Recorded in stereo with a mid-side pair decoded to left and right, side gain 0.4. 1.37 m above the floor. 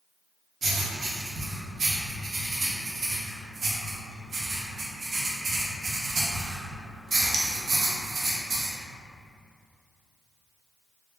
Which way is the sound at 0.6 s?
50° right.